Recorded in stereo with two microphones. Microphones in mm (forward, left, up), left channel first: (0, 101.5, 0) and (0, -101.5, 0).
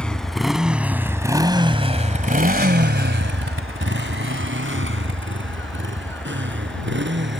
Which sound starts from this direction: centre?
A motorcycle, at 0.0 s.